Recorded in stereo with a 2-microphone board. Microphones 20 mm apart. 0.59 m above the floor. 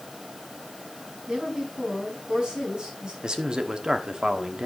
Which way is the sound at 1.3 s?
35° right (ahead or behind).